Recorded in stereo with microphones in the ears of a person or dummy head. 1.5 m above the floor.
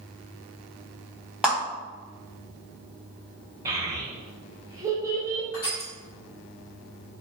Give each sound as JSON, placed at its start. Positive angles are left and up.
{"t": 1.4, "sound": "a clap", "side_deg": 0, "distance_m": 1.1}
{"t": 3.6, "sound": "a child speaking", "side_deg": -20, "distance_m": 0.8}
{"t": 5.5, "sound": "crushing", "side_deg": 25, "distance_m": 1.1}